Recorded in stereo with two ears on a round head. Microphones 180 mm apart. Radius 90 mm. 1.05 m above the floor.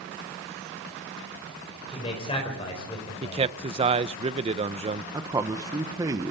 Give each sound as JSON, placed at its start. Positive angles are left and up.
{"t": 1.9, "sound": "a man speaking", "side_deg": 30, "distance_m": 5.0}
{"t": 3.2, "sound": "a man speaking", "side_deg": -30, "distance_m": 0.6}
{"t": 5.1, "sound": "a man speaking", "side_deg": -15, "distance_m": 0.9}